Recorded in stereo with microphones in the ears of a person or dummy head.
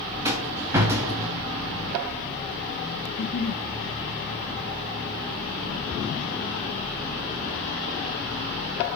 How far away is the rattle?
About 1.7 m.